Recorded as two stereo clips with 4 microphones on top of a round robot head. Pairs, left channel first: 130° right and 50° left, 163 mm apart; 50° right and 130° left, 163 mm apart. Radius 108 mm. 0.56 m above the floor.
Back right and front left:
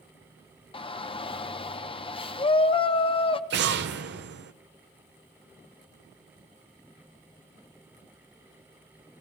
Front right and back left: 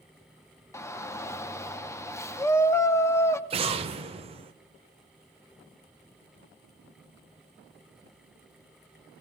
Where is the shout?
110° right, 0.8 m.